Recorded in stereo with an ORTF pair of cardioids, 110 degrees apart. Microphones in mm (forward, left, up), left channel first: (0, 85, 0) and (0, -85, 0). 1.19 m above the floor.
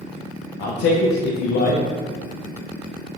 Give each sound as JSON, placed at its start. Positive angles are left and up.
{"t": 0.6, "sound": "a man speaking", "azimuth_deg": 65, "distance_m": 0.8}